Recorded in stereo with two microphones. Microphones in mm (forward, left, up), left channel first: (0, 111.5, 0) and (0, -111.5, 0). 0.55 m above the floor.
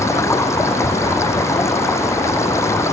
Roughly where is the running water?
Centre.